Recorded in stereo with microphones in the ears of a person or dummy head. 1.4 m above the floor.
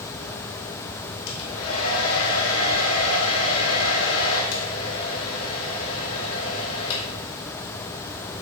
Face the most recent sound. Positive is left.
turn(degrees=85)